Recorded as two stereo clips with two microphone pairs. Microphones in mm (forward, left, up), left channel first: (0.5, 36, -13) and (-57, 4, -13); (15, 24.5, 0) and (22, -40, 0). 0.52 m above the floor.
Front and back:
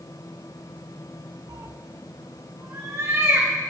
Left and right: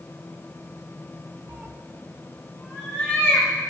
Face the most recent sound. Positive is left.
turn(degrees=165)